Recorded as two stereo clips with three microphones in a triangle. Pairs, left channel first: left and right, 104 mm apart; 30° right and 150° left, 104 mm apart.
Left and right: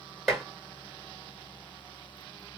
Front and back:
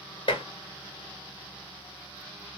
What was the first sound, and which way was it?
Dishes clattering, straight ahead.